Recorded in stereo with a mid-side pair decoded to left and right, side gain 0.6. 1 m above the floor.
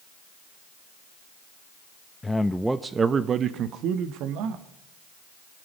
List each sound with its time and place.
2.2 s a man speaking: 20° left, 0.8 m; by 4.6 s 75° right, 1.7 m